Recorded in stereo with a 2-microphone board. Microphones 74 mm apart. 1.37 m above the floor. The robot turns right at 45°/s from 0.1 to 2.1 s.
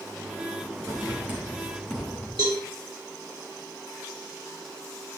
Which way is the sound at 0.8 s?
45° right (ahead or behind).